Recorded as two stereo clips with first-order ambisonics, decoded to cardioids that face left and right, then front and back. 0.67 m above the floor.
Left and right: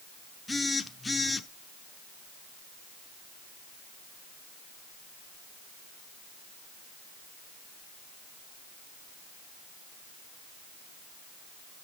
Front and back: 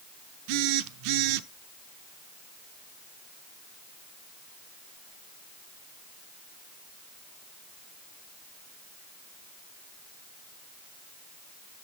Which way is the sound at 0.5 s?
170° left.